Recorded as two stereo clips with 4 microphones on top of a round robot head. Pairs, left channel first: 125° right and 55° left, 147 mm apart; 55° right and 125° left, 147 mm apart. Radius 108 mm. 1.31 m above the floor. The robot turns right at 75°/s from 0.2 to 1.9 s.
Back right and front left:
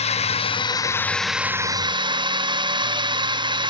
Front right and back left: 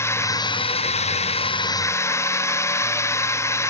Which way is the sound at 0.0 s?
120° right.